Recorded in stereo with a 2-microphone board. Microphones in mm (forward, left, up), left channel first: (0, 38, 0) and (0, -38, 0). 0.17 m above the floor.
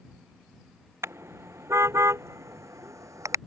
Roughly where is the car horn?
Right.